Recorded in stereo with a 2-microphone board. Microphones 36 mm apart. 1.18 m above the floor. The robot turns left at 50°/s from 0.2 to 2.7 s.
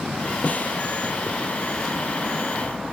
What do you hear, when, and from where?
0.4 s a snare drum: 40° left (ahead or behind); by 0.8 s 55° left (ahead or behind)